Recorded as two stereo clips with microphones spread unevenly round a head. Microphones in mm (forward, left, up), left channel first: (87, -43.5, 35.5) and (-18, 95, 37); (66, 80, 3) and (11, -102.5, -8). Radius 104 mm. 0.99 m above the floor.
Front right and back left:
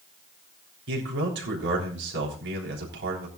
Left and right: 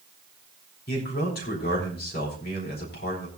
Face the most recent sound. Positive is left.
turn(degrees=125)